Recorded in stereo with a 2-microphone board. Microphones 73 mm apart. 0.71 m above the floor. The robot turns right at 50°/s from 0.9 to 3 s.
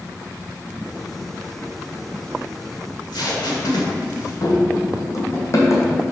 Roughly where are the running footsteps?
Left.